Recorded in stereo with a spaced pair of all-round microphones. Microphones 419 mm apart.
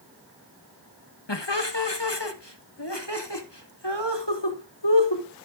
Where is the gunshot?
No gunshot in this recording.